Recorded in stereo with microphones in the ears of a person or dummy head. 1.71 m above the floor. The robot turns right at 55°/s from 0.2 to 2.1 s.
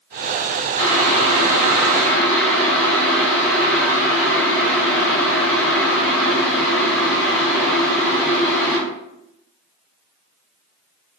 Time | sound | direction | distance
0.8 | boiling | 80° right | 1.6 m